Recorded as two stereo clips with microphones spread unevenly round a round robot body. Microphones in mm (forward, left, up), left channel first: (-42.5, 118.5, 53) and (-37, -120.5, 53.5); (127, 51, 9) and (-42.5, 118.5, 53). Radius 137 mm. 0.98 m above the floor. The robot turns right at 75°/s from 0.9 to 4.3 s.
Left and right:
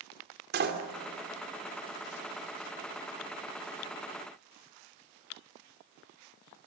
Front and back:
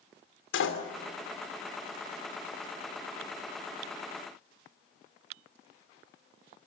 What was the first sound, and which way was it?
A door slam, 35° right.